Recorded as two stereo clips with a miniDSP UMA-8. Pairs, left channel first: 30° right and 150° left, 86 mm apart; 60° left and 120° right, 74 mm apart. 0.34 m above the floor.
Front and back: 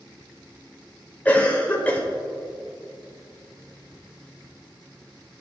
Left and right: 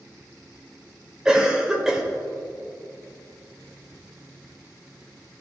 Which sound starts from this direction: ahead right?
A cough, at 1.2 s.